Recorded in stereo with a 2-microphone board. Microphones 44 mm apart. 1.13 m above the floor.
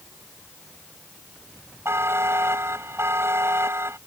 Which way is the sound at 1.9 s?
80° right.